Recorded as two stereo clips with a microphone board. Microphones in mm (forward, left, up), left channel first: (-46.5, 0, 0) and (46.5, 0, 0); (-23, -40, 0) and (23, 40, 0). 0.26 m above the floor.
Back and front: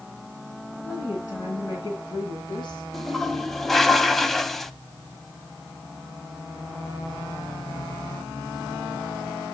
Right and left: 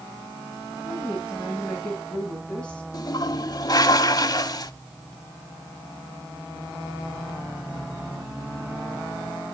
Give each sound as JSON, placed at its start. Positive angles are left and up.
{"t": 0.8, "sound": "a woman speaking", "azimuth_deg": 130, "distance_m": 3.5}
{"t": 2.9, "sound": "a toilet flushing", "azimuth_deg": -95, "distance_m": 0.5}